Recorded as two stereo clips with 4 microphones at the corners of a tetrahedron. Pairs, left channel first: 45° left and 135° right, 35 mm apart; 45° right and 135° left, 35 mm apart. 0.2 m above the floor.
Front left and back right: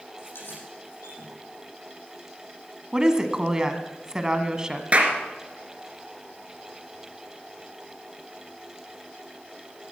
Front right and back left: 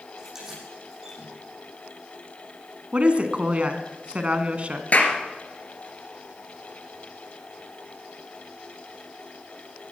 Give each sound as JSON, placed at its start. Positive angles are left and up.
{"t": 0.2, "sound": "keys jangling", "azimuth_deg": 60, "distance_m": 7.5}
{"t": 2.9, "sound": "a woman speaking", "azimuth_deg": 160, "distance_m": 1.5}
{"t": 4.9, "sound": "a clap", "azimuth_deg": -80, "distance_m": 2.5}